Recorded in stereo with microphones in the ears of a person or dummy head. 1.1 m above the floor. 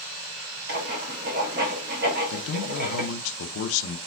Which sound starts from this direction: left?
A man speaking, at 2.3 s.